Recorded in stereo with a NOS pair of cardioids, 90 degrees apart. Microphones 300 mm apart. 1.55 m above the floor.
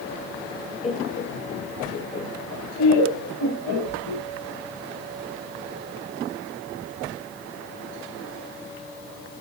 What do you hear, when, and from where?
0.8 s laughter: 20° left, 1.0 m; by 4.2 s 80° left, 2.5 m